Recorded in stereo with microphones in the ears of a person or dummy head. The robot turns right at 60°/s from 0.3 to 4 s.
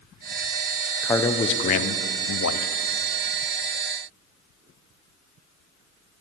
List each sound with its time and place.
1.0 s a man speaking: 10° left, 0.5 m; by 2.7 s 110° left, 0.5 m